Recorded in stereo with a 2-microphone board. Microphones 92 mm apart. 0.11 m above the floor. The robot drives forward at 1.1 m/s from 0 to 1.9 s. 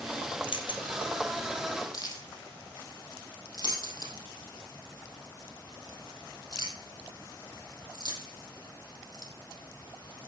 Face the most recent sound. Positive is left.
turn(degrees=45)  # may be behind; listen again after turning